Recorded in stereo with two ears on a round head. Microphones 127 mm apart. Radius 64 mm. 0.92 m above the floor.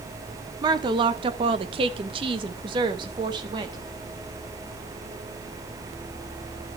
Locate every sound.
0.6 s a woman speaking: 30° right (ahead or behind), 0.9 m